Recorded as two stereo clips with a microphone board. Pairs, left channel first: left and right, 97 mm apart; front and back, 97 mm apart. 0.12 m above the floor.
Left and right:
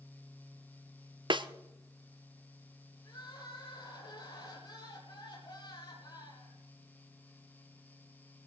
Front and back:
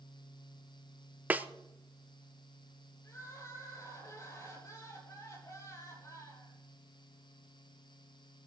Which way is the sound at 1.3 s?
110° right.